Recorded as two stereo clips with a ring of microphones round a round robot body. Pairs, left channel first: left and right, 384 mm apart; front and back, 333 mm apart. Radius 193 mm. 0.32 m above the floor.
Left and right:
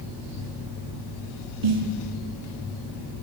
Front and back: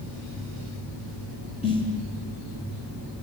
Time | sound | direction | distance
1.6 | a snare drum | 75° right | 4.5 m